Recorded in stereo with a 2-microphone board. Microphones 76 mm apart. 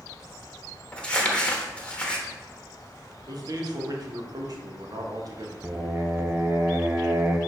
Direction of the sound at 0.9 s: 15° left (ahead or behind).